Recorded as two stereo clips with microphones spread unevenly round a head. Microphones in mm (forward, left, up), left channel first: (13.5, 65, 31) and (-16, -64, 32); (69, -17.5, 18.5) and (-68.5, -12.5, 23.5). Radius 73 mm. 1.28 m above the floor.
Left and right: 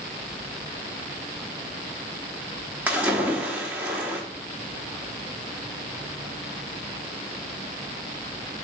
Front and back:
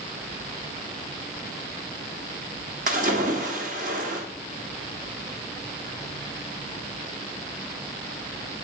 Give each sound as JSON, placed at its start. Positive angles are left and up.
{"t": 2.9, "sound": "a splash", "azimuth_deg": 180, "distance_m": 1.0}